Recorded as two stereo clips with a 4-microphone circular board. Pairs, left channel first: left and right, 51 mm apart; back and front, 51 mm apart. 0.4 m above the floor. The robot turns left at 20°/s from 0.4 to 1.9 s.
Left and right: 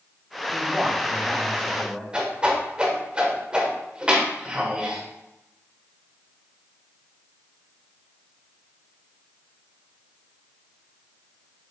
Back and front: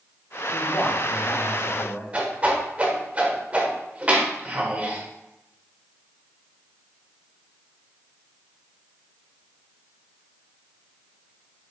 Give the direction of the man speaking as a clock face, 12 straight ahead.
5 o'clock.